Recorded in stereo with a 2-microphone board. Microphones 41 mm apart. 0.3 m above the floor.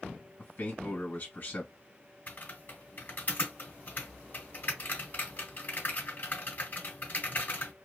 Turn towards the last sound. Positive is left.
turn(degrees=45)  # may be behind; listen again after turning